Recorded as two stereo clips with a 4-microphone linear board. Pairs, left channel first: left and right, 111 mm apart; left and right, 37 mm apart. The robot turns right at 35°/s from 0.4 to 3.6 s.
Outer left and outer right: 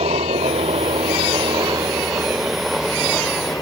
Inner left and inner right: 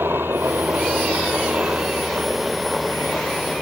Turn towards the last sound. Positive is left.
turn(degrees=25)